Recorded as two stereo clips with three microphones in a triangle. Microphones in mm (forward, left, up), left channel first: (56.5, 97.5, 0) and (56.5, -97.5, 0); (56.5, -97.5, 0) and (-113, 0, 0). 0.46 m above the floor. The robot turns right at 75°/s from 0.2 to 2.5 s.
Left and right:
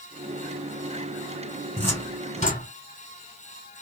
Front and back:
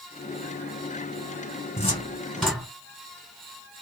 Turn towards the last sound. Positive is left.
turn(degrees=65)